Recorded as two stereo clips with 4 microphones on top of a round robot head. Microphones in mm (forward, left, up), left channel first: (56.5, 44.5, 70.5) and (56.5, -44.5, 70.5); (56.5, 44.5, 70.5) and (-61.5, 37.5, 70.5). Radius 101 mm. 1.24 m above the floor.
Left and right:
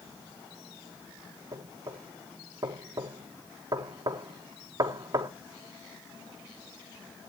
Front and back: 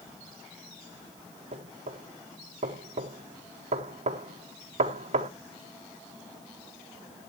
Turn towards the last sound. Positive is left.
turn(degrees=-145)